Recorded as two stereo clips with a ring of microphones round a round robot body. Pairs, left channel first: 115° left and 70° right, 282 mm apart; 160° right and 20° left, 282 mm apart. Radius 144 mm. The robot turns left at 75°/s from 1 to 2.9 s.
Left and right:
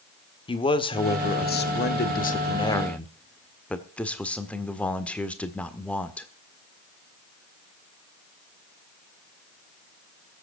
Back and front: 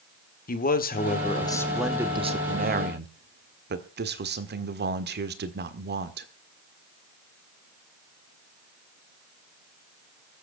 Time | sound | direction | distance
0.5 | a man speaking | 170° left | 1.5 m